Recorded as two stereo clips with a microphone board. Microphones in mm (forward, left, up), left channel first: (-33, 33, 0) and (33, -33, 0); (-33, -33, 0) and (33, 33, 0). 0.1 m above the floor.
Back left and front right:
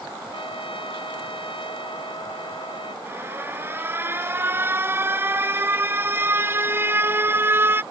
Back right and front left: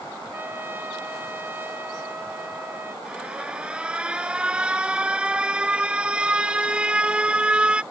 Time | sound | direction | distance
0.3 | a trumpet | 115° left | ?
3.0 | an alarm | 20° right | ?